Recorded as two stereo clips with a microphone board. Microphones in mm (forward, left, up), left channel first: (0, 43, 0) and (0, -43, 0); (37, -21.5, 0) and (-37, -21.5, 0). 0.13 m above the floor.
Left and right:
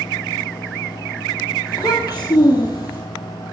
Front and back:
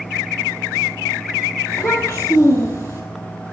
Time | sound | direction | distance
1.7 | a child speaking | 50° left | 2.5 m